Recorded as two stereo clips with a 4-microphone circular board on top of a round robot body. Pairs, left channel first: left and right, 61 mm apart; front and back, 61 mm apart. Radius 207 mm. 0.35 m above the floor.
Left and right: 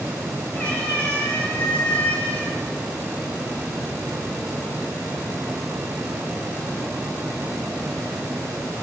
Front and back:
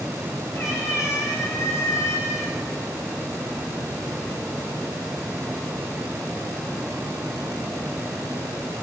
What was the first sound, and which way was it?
A cat meowing, 25° left.